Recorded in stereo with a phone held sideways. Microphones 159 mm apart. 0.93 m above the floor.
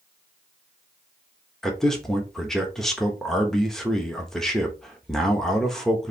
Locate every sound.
1.6 s a man speaking: centre (ahead or behind), 1.1 m